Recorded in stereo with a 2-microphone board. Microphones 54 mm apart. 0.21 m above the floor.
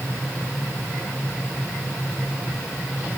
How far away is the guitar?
No guitar in this recording.